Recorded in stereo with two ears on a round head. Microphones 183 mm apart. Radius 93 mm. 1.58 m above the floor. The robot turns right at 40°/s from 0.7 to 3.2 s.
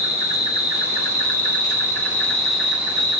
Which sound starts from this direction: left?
An insect, at 0.0 s.